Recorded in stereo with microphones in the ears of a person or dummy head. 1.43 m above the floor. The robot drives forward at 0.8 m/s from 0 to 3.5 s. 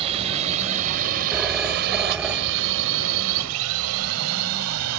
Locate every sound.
0.0 s a drone: 30° right (ahead or behind); by 5.0 s 85° right
1.3 s a phone ringing: 10° right (ahead or behind); by 2.9 s 5° right (ahead or behind)